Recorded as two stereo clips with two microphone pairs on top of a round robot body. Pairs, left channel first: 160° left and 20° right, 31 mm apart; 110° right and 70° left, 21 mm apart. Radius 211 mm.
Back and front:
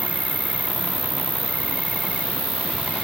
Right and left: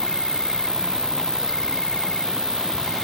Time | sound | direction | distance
0.0 | an insect | 65° right | ?